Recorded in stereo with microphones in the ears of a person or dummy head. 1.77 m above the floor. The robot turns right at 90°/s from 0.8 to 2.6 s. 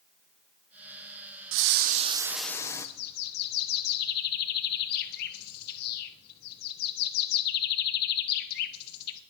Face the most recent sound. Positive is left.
turn(degrees=55)  # may be behind; listen again after turning